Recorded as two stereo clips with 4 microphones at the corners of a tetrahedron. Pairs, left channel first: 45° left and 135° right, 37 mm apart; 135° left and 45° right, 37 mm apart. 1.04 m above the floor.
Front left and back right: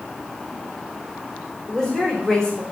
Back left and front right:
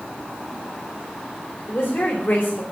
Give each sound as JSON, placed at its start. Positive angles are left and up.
{"t": 1.7, "sound": "a woman speaking", "azimuth_deg": 120, "distance_m": 3.5}